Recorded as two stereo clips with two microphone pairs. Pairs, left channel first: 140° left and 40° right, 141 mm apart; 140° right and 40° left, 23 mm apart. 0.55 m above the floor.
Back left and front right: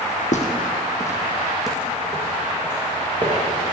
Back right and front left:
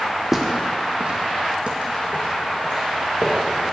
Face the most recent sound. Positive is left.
turn(degrees=20)